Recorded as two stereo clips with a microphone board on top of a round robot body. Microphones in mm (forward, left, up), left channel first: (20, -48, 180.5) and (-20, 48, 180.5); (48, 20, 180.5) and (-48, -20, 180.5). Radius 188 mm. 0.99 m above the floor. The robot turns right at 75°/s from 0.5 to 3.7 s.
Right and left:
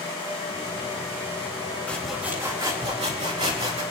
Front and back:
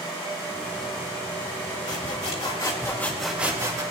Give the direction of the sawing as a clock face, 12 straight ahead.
12 o'clock.